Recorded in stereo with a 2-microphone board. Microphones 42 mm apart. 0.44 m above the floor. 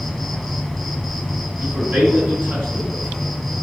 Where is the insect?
5° left (ahead or behind), 1.1 m.